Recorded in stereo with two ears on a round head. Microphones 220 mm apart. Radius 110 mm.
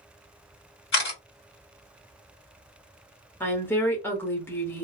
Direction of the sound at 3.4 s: 10° left (ahead or behind).